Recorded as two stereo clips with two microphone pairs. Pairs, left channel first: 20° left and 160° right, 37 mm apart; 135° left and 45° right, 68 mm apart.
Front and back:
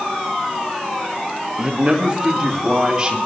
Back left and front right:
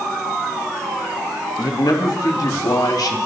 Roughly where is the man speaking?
Behind left.